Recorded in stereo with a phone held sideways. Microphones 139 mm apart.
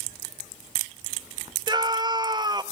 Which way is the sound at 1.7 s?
30° right (ahead or behind).